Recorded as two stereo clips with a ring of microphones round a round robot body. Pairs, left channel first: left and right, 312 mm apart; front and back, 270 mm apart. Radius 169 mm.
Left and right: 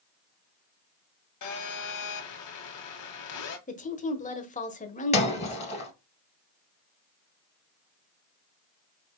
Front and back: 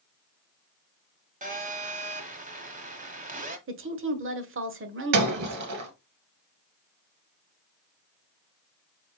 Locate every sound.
1.4 s a phone buzzing: 120° left, 1.6 m
3.7 s a woman speaking: 150° left, 1.3 m
5.1 s breaking glass: 160° left, 1.7 m